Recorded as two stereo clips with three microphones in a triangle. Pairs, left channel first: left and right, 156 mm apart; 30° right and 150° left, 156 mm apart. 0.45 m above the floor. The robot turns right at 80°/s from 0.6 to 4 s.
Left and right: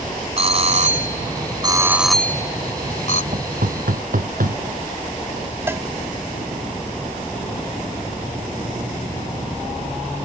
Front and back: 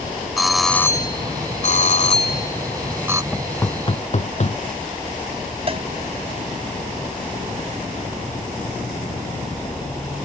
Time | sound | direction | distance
0.4 | a doorbell | 120° right | ?
3.3 | knocking | 125° right | ?
5.7 | a cowbell | 160° right | ?